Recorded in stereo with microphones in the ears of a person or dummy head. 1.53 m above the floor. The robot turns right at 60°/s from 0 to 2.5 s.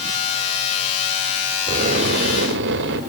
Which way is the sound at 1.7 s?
140° right.